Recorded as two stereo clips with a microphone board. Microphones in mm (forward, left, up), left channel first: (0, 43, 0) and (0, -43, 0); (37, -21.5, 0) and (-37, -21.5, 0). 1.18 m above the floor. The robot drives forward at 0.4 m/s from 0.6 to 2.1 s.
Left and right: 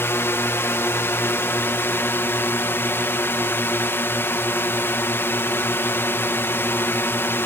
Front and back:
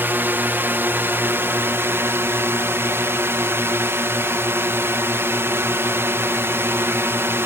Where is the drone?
135° left; by 7.5 s 140° left.